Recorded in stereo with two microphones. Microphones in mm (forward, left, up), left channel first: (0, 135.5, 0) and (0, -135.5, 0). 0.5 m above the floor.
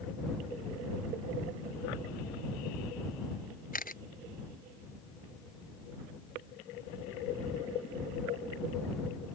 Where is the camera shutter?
30° left (ahead or behind).